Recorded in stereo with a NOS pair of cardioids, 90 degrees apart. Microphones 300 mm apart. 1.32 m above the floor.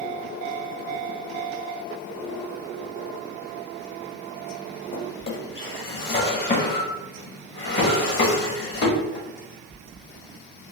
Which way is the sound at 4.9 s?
40° left.